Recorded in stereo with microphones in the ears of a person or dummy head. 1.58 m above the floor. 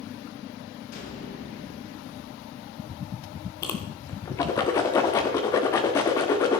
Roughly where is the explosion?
Left.